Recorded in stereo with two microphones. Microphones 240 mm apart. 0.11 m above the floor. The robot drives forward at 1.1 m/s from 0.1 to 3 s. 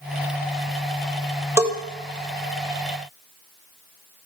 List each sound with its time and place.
1.6 s a bell: 10° right (ahead or behind), 1.7 m